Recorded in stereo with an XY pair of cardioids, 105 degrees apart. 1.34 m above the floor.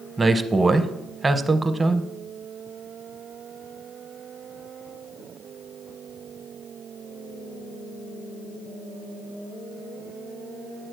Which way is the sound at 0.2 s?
20° right.